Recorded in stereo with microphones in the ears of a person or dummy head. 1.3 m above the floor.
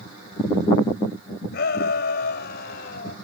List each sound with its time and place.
1.5 s a shout: 60° left (ahead or behind); by 3.2 s 55° left (ahead or behind)